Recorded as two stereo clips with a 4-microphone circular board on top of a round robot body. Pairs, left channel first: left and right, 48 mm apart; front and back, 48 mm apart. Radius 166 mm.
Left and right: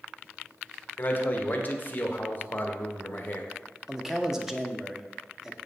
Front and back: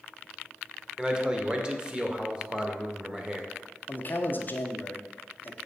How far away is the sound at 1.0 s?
About 1.3 m.